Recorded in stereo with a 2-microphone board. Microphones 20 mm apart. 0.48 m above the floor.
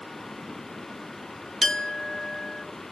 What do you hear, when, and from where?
1.6 s a clink: 25° left (ahead or behind), 0.6 m